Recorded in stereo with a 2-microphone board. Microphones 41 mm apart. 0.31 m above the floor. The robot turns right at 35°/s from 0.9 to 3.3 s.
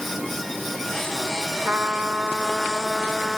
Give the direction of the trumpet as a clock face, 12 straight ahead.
2 o'clock.